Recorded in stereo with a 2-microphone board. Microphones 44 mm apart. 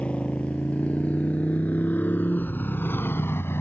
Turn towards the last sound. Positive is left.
turn(degrees=75)  # may be behind; listen again after turning